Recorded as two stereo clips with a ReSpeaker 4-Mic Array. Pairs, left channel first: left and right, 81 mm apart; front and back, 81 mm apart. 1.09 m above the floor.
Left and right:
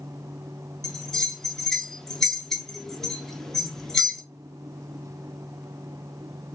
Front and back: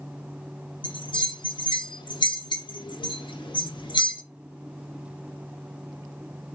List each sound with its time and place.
0.8 s a bell: 5° left, 0.5 m